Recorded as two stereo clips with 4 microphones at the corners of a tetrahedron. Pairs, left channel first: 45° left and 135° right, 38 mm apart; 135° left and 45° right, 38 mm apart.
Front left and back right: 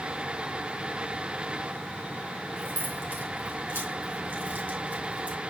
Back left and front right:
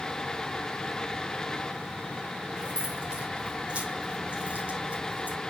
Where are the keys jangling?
115° right, 4.5 m; by 5.4 s 85° right, 3.5 m.